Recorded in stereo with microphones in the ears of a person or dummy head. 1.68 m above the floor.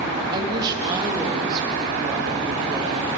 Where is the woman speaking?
25° right (ahead or behind), 2.5 m.